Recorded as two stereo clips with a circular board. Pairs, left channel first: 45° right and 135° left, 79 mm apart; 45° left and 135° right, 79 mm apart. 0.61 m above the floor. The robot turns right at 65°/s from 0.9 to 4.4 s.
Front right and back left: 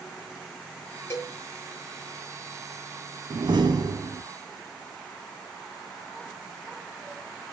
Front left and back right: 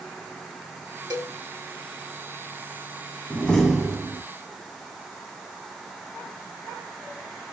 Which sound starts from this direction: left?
A door slam, at 3.3 s.